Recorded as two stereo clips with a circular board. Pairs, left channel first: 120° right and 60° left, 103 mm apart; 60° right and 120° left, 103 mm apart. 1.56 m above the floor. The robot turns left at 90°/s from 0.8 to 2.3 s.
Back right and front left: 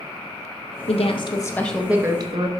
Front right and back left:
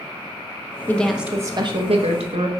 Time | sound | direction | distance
0.9 | a woman speaking | 130° right | 1.1 m